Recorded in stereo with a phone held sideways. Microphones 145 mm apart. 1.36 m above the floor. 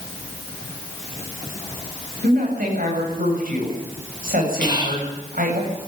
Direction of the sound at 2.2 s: 80° right.